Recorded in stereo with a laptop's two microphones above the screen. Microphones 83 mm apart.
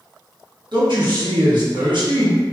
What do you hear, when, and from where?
0.7 s a man speaking: 70° right (ahead or behind), 1.6 m